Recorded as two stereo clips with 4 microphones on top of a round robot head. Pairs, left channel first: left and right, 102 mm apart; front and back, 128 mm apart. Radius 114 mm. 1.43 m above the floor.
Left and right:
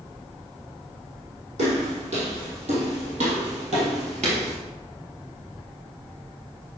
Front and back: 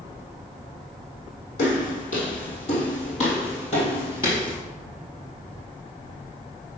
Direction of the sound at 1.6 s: 50° right.